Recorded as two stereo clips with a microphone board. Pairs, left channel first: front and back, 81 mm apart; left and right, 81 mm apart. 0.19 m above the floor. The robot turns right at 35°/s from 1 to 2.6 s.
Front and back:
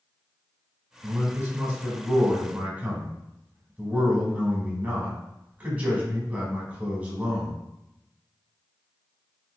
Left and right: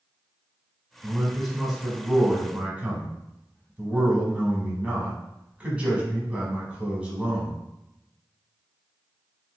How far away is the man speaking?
About 1.1 m.